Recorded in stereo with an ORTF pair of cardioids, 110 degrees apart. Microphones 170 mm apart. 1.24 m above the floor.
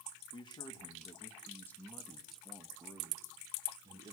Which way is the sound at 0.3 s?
30° left.